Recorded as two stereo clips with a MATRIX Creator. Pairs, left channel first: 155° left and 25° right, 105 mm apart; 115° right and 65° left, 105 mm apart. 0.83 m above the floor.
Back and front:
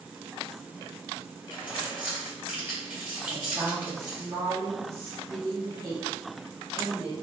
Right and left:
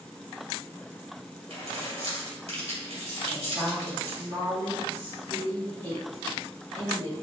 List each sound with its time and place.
1.5 s keys jangling: 50° left, 1.8 m
3.3 s a woman speaking: 35° left, 1.8 m